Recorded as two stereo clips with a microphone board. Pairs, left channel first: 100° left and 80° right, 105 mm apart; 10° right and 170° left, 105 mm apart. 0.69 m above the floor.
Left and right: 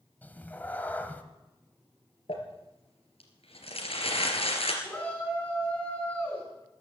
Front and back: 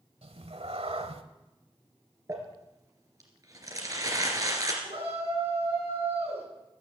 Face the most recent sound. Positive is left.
turn(degrees=175)